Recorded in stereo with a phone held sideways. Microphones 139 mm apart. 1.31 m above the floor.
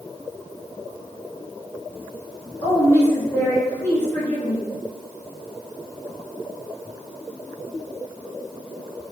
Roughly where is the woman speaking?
Left.